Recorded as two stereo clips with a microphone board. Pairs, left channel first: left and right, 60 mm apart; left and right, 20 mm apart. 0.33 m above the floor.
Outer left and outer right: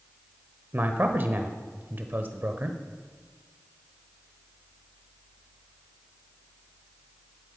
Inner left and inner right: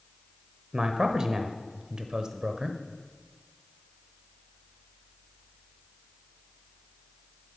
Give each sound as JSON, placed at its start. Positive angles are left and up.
{"t": 0.7, "sound": "a man speaking", "side_deg": -35, "distance_m": 1.0}